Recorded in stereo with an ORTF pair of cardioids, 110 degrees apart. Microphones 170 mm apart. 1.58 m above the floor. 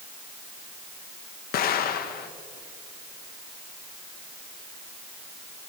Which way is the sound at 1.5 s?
65° left.